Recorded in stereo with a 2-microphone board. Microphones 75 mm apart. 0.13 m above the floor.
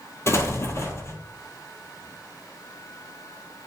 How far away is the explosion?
About 1.1 m.